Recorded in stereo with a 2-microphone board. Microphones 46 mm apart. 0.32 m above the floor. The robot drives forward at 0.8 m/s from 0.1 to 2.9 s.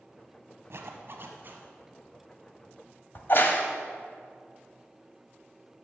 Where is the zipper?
65° right (ahead or behind), 0.9 m; by 1.6 s 40° right (ahead or behind), 1.3 m.